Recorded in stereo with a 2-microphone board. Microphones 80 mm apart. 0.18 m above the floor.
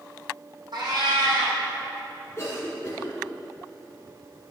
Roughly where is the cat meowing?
Right.